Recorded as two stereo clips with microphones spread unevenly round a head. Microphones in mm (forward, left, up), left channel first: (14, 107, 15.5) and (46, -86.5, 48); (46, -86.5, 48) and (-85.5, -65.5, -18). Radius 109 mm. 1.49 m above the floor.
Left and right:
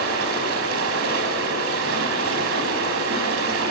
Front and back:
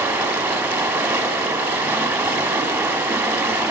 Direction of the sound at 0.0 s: 110° right.